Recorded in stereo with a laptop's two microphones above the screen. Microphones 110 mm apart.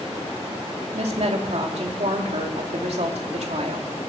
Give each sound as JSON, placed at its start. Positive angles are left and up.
{"t": 0.9, "sound": "a woman speaking", "side_deg": -70, "distance_m": 3.0}